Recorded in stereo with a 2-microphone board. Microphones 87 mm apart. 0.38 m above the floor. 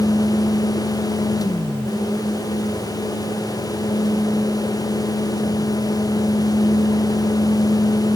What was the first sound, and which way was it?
Only background noise.